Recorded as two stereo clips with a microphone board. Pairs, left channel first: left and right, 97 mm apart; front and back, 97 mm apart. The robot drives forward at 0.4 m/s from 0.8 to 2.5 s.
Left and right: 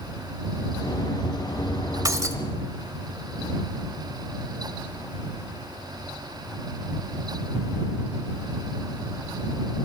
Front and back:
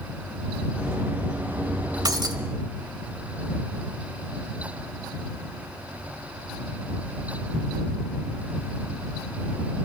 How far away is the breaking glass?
About 1.3 m.